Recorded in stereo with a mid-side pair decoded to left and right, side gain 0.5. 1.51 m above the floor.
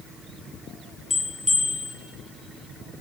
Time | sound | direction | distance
1.1 | a bell | 20° left | 1.1 m